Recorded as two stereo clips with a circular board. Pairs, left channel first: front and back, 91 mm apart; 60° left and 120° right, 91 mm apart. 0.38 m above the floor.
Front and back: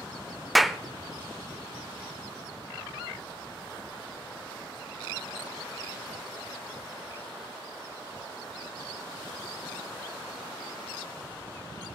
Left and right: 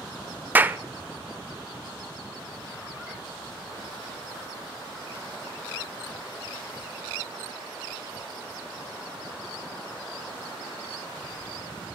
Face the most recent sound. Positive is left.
turn(degrees=-90)